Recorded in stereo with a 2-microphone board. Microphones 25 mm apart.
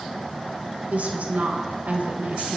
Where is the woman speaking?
70° right (ahead or behind), 1.3 m.